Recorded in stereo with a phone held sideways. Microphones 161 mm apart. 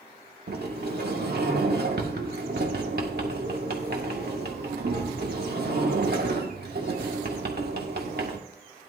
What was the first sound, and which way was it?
A sliding door, 70° right (ahead or behind).